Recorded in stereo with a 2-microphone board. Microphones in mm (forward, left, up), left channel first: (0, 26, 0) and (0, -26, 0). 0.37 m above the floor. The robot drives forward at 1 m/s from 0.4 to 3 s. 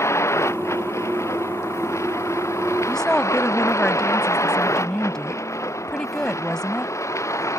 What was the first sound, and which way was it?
A vehicle, 65° left (ahead or behind).